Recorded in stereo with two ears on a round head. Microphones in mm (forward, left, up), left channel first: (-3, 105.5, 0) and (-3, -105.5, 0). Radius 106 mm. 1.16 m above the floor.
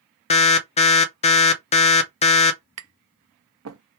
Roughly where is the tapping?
Right.